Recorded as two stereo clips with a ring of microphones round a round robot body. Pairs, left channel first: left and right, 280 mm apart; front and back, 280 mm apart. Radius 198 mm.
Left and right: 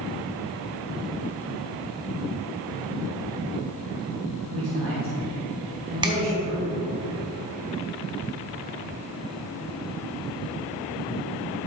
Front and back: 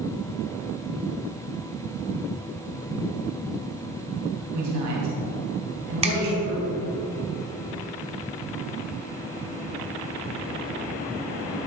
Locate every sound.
4.5 s a man speaking: 145° right, 3.5 m
6.0 s a finger snap: 145° right, 0.9 m